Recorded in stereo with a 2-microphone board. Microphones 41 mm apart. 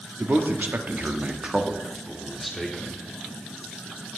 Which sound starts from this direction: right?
A man speaking, at 0.2 s.